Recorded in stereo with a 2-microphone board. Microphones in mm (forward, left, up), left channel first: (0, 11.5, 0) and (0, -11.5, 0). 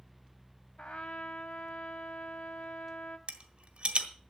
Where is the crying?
No crying in this recording.